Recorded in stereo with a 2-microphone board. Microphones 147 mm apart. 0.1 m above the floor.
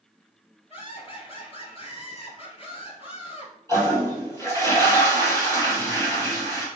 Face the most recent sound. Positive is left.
turn(degrees=20)  # may be behind; listen again after turning